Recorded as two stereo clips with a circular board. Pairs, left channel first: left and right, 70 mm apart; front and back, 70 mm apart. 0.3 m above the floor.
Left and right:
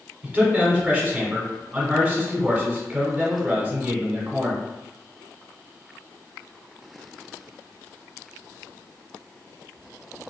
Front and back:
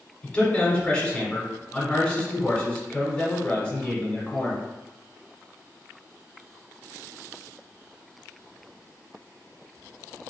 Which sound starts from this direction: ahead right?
A man speaking, at 0.2 s.